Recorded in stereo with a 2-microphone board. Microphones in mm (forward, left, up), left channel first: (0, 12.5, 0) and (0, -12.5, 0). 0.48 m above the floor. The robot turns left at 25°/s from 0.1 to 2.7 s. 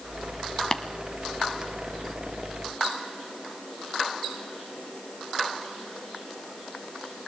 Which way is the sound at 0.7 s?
30° left (ahead or behind).